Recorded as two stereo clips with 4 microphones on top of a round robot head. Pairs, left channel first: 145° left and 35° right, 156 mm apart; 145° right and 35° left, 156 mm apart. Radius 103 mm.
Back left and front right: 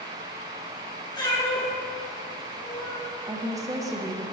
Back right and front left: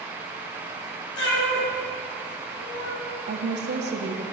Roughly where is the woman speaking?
Ahead left.